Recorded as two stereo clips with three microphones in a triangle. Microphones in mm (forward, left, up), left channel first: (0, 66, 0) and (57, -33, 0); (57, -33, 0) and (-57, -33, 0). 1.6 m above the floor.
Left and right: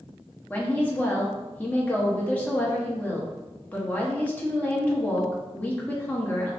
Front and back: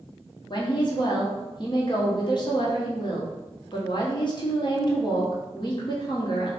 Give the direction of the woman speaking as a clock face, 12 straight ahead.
11 o'clock.